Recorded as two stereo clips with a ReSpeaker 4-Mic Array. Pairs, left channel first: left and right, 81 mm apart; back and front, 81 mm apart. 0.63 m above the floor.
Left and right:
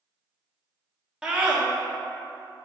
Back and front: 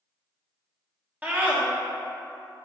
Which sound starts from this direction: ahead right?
A scream, at 1.2 s.